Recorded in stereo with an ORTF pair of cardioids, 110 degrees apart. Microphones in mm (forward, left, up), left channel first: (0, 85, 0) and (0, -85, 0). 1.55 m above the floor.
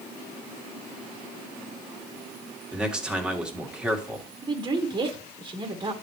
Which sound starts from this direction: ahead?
A man speaking, at 2.7 s.